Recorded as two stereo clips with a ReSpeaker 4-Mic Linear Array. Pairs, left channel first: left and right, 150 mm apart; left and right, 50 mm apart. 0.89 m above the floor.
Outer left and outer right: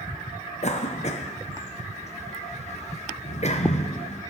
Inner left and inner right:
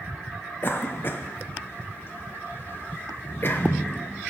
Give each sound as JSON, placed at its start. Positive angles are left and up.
{"t": 0.6, "sound": "a cough", "side_deg": 45, "distance_m": 0.6}